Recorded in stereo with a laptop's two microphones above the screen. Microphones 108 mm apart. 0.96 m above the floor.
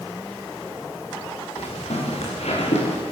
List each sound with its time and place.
1.6 s footsteps: 75° left (ahead or behind), 8 m; by 3.0 s 80° left, 8.5 m